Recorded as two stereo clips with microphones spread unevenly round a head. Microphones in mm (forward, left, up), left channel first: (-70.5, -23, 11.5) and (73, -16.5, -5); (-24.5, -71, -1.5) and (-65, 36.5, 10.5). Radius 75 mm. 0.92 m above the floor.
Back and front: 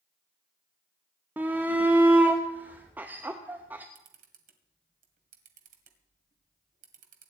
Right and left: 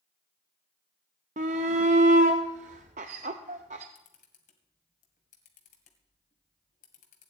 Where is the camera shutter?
25° right, 2 m.